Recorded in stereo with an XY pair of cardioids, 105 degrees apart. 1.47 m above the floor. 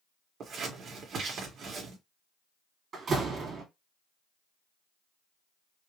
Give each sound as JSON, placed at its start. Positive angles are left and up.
{"t": 0.4, "sound": "scissors", "azimuth_deg": -60, "distance_m": 1.8}
{"t": 2.9, "sound": "a door slam", "azimuth_deg": -50, "distance_m": 2.0}